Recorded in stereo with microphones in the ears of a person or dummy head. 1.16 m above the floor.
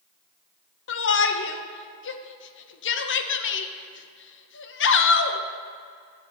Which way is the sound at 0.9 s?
60° left (ahead or behind).